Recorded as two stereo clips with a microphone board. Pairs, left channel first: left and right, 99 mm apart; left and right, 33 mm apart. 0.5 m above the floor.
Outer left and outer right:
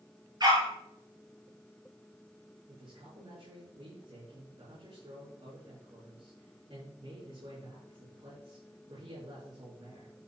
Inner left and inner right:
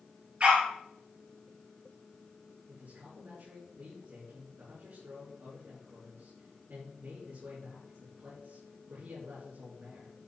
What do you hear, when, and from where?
0.4 s a dog barking: 45° right (ahead or behind), 3.5 m
2.7 s a man speaking: 75° right (ahead or behind), 7 m